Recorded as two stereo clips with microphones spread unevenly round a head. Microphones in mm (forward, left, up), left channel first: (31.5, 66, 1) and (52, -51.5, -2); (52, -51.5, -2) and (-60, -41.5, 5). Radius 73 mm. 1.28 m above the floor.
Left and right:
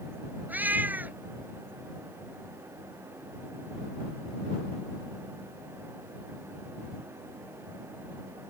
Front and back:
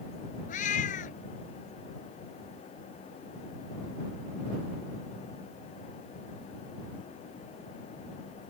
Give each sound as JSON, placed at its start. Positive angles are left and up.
{"t": 0.5, "sound": "a cat meowing", "azimuth_deg": -5}